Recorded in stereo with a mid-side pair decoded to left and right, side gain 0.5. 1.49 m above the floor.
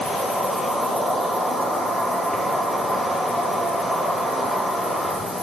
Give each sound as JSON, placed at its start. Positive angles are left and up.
{"t": 0.0, "sound": "an insect", "azimuth_deg": 25, "distance_m": 6.5}